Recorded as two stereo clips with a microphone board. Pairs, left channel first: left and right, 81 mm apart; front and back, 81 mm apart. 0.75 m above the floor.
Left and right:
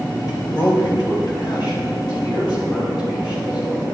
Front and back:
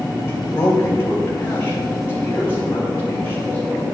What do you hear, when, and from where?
0.3 s a man speaking: 60° left, 3.5 m; by 3.9 s 65° left, 7 m